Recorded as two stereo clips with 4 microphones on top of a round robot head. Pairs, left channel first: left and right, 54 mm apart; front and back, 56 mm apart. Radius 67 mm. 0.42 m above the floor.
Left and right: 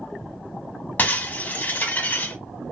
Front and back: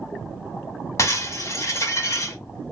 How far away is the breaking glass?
About 1.6 m.